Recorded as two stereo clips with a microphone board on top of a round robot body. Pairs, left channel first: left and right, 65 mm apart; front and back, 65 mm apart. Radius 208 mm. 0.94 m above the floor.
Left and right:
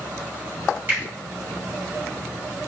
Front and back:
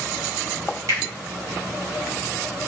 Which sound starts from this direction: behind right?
A finger snap, at 0.9 s.